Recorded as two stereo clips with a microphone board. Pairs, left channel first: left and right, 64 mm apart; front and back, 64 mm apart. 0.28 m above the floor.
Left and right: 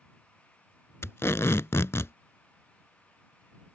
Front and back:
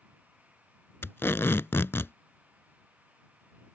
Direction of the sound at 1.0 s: 45° left.